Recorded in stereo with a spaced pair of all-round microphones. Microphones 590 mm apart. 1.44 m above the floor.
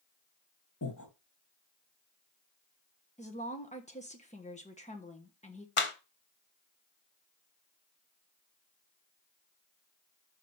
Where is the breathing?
30° left (ahead or behind), 1.4 m.